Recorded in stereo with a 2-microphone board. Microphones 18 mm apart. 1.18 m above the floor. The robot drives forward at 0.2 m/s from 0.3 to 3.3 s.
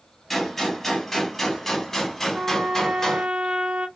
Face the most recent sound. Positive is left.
turn(degrees=-70)  # may be behind; listen again after turning